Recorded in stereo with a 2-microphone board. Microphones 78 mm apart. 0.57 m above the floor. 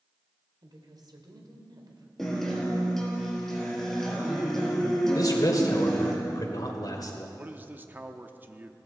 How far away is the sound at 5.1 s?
About 2 m.